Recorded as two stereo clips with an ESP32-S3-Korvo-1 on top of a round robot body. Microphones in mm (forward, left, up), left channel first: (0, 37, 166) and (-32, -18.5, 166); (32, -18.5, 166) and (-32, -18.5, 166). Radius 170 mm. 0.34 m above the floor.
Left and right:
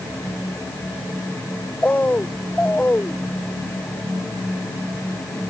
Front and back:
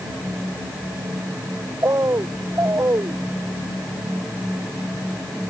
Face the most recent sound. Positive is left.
turn(degrees=130)